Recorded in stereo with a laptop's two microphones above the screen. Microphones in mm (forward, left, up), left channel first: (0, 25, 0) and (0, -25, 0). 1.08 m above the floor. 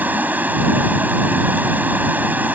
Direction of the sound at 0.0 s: 35° right (ahead or behind).